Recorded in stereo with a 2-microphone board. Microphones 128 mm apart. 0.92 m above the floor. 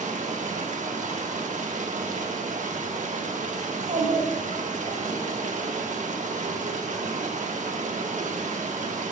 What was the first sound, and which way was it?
Running water, 75° right (ahead or behind).